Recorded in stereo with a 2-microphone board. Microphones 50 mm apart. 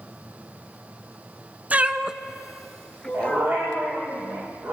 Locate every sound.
1.7 s a cat meowing: 30° right (ahead or behind), 0.7 m; by 3.5 s 20° left (ahead or behind), 1.1 m
3.1 s a dog barking: 40° right (ahead or behind), 6.5 m